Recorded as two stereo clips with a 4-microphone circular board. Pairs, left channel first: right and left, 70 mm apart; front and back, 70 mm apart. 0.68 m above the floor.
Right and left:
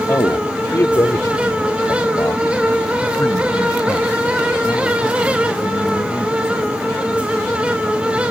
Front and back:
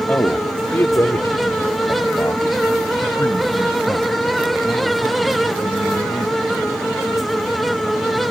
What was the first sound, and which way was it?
A man speaking, 55° right.